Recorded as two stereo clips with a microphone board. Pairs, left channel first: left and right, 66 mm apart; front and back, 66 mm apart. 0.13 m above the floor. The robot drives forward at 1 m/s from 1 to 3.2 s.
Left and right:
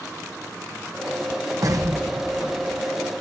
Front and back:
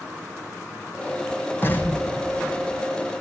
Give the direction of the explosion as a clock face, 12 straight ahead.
2 o'clock.